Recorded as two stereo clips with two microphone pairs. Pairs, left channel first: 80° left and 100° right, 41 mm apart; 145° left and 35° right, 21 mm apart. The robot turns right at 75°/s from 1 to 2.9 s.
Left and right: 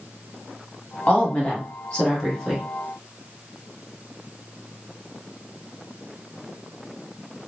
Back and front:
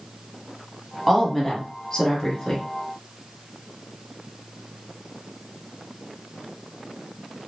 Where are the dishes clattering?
No dishes clattering in this recording.